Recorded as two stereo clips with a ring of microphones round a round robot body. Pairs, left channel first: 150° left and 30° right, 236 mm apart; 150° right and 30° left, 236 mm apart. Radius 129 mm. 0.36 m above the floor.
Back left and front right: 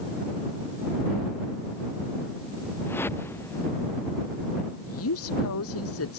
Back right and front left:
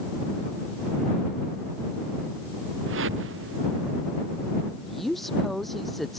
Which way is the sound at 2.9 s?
70° left.